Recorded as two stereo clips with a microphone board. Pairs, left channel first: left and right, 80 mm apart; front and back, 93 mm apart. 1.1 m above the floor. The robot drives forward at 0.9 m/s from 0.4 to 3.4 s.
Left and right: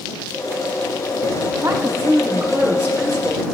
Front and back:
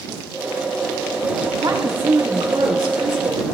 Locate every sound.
1.6 s a woman speaking: 155° right, 1.5 m; by 3.5 s 165° right, 3 m